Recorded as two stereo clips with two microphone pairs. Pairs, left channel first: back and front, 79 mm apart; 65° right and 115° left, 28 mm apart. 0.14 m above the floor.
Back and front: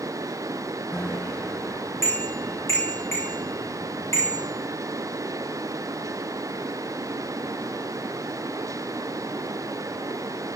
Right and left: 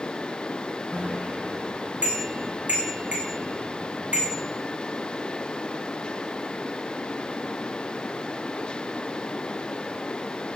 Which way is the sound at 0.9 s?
125° left.